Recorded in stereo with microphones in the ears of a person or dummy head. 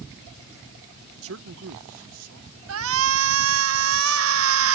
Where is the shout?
70° right (ahead or behind).